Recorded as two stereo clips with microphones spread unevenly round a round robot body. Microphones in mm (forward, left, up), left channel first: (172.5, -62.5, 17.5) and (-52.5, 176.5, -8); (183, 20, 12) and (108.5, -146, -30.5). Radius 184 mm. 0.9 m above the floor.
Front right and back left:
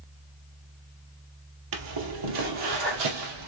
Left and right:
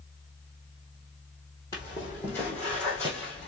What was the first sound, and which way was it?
Footsteps, 130° left.